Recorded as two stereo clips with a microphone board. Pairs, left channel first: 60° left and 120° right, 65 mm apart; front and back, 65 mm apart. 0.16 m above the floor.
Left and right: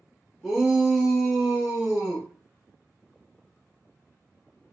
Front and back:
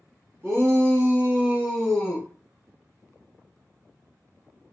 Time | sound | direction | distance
0.4 | a shout | 155° left | 1.8 m